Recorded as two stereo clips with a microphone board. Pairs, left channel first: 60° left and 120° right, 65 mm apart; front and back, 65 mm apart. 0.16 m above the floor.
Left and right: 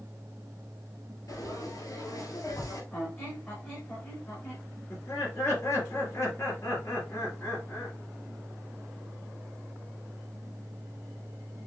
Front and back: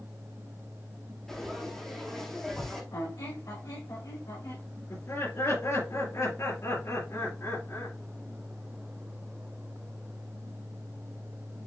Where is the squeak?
5° right, 3 m.